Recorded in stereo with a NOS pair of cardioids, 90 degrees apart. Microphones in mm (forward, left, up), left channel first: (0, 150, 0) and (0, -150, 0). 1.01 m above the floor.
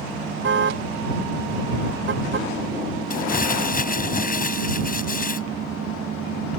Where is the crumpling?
30° left.